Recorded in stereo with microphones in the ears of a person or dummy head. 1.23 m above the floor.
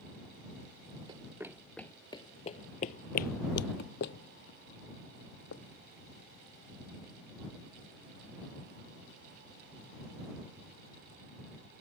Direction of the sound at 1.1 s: 20° right (ahead or behind).